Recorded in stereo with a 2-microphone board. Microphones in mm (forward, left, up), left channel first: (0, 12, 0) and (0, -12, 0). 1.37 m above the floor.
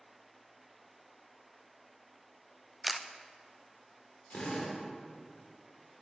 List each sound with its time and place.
2.8 s a camera shutter: 5° right (ahead or behind), 0.5 m
4.3 s a drill: 60° left (ahead or behind), 2.5 m